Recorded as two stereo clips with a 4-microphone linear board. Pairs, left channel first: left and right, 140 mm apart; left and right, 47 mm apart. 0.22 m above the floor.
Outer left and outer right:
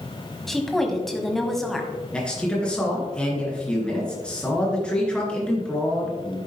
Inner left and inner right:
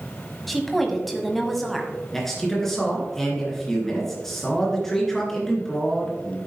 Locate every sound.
0.5 s a woman speaking: centre (ahead or behind), 1.5 m
2.1 s a man speaking: 5° left (ahead or behind), 3 m